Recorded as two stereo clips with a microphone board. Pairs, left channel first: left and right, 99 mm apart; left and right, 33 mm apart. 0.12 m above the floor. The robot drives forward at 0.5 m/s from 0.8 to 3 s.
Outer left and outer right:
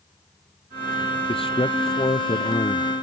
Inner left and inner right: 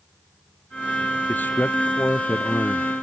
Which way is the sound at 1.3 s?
65° left (ahead or behind).